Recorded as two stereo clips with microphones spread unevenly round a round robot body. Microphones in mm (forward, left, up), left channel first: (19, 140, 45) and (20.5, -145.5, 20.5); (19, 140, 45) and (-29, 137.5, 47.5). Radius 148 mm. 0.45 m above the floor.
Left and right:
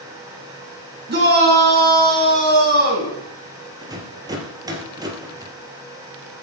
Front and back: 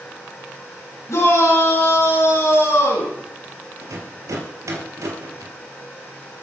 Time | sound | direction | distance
1.1 | a shout | 35° right | 6.5 m
3.8 | a rattle | 170° right | 3 m